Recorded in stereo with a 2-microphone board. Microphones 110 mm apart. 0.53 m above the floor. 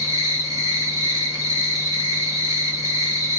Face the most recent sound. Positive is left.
turn(degrees=-30)  # may be behind; listen again after turning